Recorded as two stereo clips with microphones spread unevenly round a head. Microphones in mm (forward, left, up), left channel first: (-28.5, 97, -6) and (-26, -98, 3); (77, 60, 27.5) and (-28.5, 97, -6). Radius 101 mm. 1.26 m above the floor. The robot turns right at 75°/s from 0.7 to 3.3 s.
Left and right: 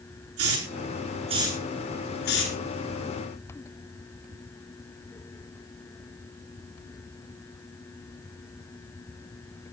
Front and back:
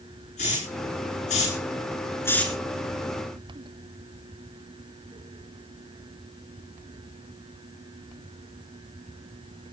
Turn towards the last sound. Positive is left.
turn(degrees=125)